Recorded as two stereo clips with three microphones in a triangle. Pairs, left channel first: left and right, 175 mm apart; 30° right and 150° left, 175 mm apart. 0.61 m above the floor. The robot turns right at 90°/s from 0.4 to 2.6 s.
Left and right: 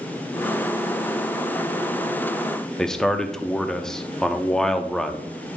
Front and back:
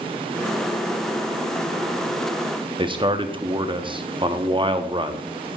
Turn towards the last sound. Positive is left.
turn(degrees=170)